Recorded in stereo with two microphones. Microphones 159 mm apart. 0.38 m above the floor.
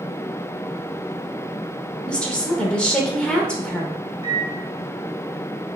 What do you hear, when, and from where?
2.1 s a woman speaking: 5° left (ahead or behind), 0.8 m
4.2 s a microwave: 35° left (ahead or behind), 0.8 m